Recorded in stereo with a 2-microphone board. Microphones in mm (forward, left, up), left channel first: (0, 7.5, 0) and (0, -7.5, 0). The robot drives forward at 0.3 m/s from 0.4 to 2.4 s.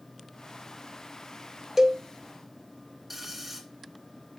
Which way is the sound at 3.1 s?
15° right (ahead or behind).